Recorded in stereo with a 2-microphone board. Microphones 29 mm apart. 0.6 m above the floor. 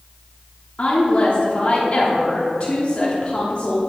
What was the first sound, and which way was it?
A woman speaking, 40° left (ahead or behind).